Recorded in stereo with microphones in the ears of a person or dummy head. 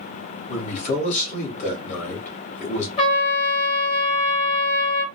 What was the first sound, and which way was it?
A man speaking, 40° left (ahead or behind).